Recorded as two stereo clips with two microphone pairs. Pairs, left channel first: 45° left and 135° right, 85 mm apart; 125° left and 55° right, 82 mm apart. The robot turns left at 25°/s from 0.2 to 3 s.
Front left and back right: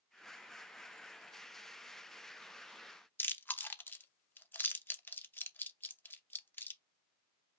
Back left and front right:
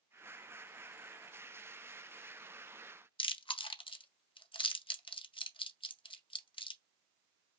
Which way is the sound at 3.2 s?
115° left.